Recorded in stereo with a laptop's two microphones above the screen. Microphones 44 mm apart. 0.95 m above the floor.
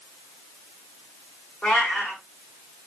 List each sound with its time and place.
1.6 s a cat meowing: 45° left (ahead or behind), 1.7 m